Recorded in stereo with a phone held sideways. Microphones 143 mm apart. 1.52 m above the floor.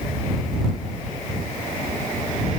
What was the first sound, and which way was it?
Only background noise.